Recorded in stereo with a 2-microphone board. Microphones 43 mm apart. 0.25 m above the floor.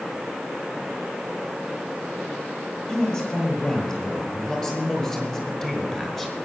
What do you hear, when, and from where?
2.9 s a man speaking: 20° left (ahead or behind), 7 m; by 6.5 s 10° left (ahead or behind), 4 m